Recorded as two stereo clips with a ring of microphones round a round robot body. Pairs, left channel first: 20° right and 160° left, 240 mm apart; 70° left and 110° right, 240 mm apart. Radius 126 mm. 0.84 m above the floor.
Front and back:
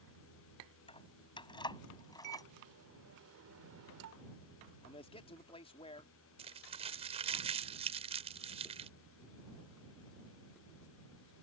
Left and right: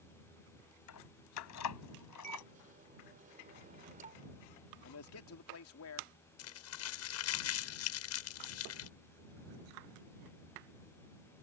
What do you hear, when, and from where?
0.9 s keys jangling: 45° left; by 2.5 s 55° left
2.2 s a microwave: 170° right
4.8 s a man speaking: 45° left
6.4 s crumpling: 90° left